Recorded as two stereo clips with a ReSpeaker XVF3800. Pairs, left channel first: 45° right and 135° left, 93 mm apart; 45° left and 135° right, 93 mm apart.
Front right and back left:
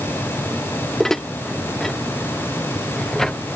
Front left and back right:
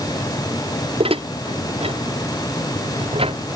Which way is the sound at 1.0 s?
130° right.